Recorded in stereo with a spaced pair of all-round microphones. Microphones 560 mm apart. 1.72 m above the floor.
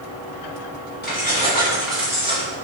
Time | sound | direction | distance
1.0 | keys jangling | 15° left (ahead or behind) | 1.7 m